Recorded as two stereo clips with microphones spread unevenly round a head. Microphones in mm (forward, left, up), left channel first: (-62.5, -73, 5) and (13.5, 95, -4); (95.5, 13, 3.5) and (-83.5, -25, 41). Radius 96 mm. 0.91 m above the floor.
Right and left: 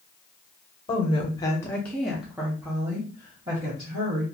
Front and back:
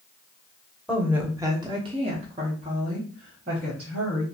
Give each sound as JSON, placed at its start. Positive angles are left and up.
{"t": 0.9, "sound": "a woman speaking", "azimuth_deg": -70, "distance_m": 0.7}